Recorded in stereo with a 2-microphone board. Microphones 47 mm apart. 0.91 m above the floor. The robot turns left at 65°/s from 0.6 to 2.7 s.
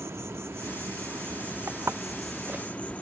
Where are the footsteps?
80° right; by 2.9 s 20° right (ahead or behind).